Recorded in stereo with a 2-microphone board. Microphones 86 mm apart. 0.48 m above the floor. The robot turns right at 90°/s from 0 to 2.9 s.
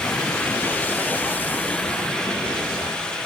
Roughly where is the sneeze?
I don't hear a sneeze.